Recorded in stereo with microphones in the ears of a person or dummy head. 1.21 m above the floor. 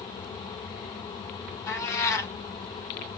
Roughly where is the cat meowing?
Left.